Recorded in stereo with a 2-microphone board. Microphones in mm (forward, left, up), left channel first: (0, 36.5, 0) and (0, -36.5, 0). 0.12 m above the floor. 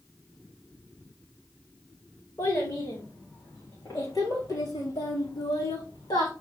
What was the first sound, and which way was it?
A child speaking, 35° left (ahead or behind).